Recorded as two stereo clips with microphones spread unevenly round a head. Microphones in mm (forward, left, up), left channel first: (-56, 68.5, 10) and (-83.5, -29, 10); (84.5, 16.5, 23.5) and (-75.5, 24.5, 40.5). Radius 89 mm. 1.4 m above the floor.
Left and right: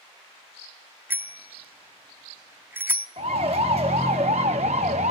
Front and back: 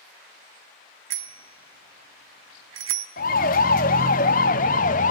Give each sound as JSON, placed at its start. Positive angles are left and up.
{"t": 1.1, "sound": "a bicycle bell", "azimuth_deg": -175, "distance_m": 2.0}
{"t": 3.2, "sound": "a siren", "azimuth_deg": -45, "distance_m": 2.5}